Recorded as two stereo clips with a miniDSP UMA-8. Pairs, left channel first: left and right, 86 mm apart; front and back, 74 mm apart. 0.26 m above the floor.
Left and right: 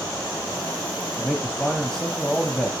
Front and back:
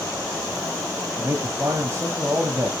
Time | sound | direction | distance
1.1 | a man speaking | 175° left | 1.5 m